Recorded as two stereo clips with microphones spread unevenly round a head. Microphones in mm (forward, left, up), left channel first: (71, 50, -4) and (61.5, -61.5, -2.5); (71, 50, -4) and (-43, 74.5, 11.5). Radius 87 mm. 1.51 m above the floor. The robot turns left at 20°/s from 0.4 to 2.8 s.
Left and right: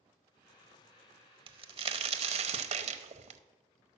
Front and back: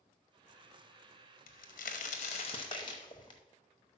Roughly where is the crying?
No crying in this recording.